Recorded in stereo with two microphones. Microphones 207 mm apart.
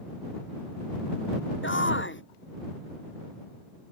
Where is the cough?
I don't hear a cough.